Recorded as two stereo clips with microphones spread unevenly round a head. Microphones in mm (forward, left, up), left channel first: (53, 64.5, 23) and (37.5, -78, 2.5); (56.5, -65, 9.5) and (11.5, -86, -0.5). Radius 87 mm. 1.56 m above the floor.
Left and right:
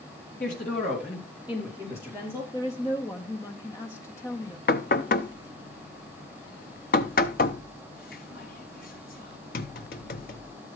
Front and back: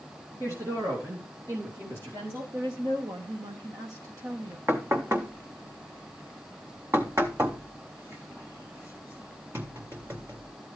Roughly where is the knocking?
Behind left.